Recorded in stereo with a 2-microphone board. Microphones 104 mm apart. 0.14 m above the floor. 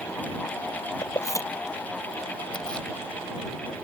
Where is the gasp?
No gasp in this recording.